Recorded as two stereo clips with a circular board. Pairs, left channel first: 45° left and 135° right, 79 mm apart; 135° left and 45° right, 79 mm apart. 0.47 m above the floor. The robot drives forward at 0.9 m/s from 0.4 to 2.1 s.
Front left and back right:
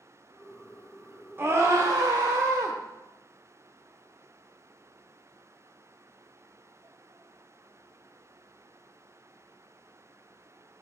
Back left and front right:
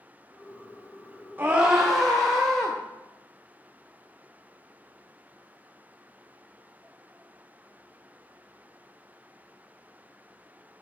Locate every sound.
1.4 s a scream: 95° right, 0.9 m; by 2.8 s 140° right, 1.1 m